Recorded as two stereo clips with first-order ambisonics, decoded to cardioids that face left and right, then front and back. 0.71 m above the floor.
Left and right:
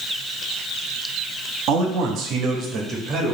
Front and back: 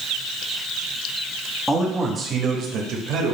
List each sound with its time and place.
1.7 s a man speaking: 90° right, 0.9 m; by 3.4 s 160° right, 1.1 m